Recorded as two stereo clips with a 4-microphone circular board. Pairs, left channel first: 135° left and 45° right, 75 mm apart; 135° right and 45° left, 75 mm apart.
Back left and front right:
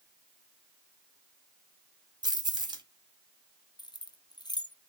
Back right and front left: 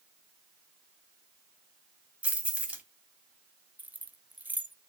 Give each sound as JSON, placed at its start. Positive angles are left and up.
{"t": 2.2, "sound": "keys jangling", "azimuth_deg": -30, "distance_m": 1.2}
{"t": 3.8, "sound": "keys jangling", "azimuth_deg": 115, "distance_m": 0.6}